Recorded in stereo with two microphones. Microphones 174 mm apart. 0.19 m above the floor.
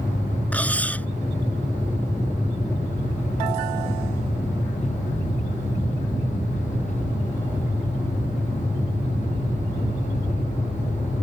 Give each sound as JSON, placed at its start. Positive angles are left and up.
{"t": 0.5, "sound": "cutlery clinking", "side_deg": 10}